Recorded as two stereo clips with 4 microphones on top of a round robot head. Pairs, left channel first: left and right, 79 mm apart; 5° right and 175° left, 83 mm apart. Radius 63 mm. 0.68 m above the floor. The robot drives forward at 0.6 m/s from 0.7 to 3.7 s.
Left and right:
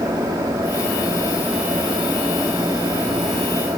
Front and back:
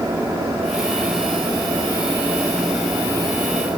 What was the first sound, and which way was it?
Only background noise.